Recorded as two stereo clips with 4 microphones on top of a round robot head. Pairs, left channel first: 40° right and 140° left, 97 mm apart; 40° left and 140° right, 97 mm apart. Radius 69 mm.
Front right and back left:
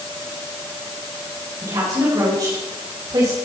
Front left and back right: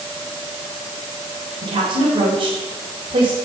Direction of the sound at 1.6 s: 170° right.